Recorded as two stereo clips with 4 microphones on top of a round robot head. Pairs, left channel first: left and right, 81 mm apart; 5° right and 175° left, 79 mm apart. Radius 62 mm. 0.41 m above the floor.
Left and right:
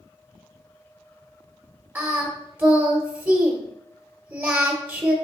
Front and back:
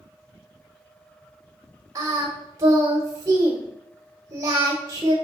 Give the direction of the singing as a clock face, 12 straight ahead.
5 o'clock.